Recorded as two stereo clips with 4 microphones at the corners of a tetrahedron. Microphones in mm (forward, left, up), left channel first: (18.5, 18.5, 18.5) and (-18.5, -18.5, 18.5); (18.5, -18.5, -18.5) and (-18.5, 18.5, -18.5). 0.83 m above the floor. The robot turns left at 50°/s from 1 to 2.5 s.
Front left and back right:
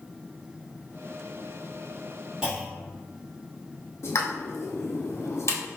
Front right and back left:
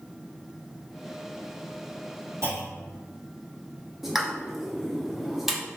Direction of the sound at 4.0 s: 55° left.